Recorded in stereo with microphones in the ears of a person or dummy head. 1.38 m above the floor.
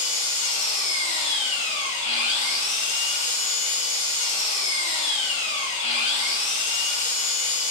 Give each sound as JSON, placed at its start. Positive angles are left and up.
{"t": 0.0, "sound": "an engine running", "side_deg": 40, "distance_m": 0.7}